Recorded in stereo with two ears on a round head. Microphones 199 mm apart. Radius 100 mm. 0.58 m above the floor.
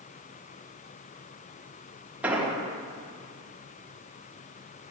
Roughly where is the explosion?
Centre.